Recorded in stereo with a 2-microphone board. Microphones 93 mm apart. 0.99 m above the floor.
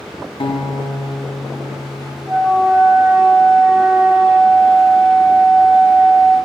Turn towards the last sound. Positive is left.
turn(degrees=-15)  # may be behind; listen again after turning